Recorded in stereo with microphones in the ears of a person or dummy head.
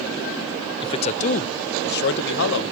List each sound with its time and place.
0.8 s a man speaking: 25° left (ahead or behind), 0.7 m; by 2.7 s 75° left (ahead or behind), 1.3 m